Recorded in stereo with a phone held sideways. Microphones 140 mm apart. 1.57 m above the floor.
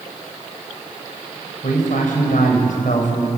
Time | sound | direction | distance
1.6 | a man speaking | 80° left | 6.5 m